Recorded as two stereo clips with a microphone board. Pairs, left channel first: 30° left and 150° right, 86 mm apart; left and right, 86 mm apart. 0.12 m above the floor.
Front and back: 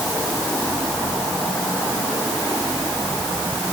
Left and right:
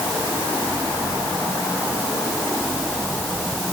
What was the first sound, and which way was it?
Only background noise.